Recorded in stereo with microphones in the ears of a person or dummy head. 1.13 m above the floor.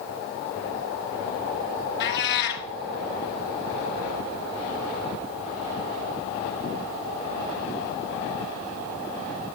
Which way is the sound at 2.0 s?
60° left (ahead or behind).